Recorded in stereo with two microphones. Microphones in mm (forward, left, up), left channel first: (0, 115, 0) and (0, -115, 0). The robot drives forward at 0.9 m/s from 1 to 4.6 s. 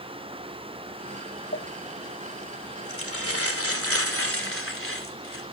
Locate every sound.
1.5 s crumpling: 55° left (ahead or behind), 3 m; by 5.4 s 70° left (ahead or behind), 2.5 m